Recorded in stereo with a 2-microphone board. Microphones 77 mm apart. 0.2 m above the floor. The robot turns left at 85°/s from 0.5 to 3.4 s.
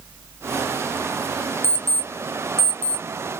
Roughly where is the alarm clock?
Left.